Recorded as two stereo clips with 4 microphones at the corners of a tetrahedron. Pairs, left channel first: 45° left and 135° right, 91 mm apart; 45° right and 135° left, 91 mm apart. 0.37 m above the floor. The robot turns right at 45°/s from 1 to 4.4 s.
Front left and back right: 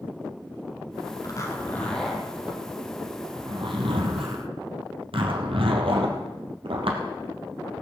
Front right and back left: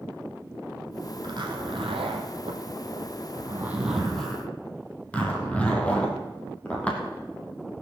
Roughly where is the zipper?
Left.